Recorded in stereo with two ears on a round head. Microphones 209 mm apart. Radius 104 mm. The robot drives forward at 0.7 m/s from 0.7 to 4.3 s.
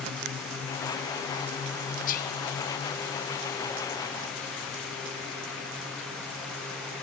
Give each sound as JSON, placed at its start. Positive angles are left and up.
{"t": 2.1, "sound": "whispering", "side_deg": 35, "distance_m": 0.9}